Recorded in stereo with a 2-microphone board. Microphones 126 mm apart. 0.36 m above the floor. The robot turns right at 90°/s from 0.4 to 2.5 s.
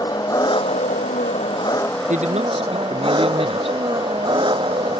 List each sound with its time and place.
0.0 s an engine running: 30° left; by 5.0 s 140° right
2.1 s a man speaking: 85° right; by 3.8 s 50° right